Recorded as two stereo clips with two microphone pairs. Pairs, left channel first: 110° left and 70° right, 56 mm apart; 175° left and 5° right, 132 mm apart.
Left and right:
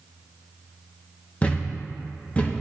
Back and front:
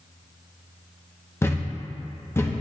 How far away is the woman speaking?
No woman speaking in this recording.